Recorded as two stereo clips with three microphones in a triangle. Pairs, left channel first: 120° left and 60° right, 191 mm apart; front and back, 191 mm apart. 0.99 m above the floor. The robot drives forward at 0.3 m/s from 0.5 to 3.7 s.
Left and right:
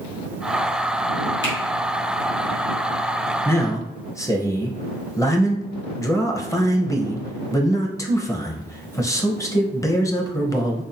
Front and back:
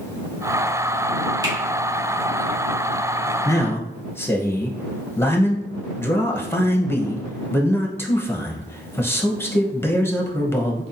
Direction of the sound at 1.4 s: 110° left.